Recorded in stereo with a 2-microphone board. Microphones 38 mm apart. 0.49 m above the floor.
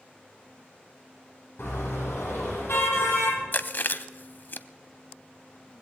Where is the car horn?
80° left, 10 m; by 3.4 s 85° left, 9.5 m.